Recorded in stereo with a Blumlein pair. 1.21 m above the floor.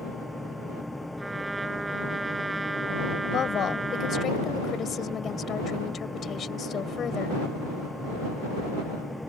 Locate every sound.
0.0 s a fan: 5° left
1.2 s a trumpet: 10° right
3.2 s a woman speaking: 25° left